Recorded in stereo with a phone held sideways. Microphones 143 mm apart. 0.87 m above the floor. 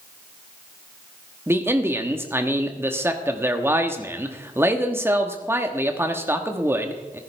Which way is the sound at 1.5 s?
15° right (ahead or behind).